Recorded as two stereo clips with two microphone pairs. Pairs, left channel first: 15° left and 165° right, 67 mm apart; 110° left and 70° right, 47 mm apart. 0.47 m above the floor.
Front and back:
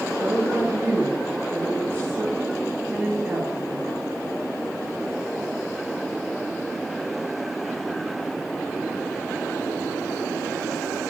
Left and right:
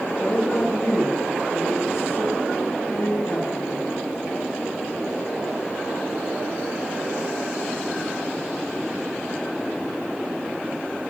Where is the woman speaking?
140° left, 4.5 m; by 3.9 s 115° left, 6 m.